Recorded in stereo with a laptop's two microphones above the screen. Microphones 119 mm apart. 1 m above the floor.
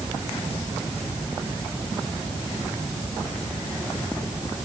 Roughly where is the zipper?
No zipper in this recording.